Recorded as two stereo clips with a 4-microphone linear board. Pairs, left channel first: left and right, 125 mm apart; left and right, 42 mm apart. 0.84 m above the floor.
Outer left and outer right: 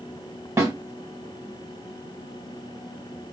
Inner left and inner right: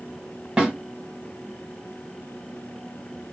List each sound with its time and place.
0.6 s a snare drum: 25° right (ahead or behind), 1.3 m